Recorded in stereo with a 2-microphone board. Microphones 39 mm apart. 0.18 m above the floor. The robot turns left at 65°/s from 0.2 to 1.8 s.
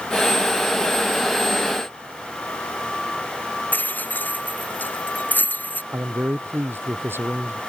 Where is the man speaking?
80° right.